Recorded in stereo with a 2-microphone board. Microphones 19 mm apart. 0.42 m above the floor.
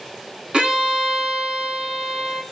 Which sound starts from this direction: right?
A violin, at 0.5 s.